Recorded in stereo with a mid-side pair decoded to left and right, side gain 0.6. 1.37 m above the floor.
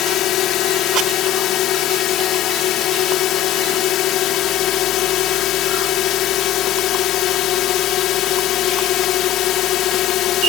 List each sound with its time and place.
0.0 s a drone: 60° left